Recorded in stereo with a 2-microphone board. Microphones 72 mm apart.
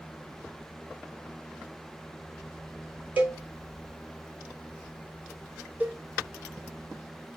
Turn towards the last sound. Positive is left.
turn(degrees=-20)  # may be behind; listen again after turning